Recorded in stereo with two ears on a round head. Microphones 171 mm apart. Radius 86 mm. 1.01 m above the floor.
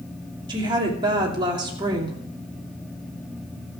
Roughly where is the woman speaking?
Right.